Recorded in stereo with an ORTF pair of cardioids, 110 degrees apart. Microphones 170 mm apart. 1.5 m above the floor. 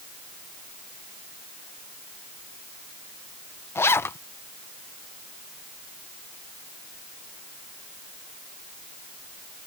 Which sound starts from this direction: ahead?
A zipper, at 3.8 s.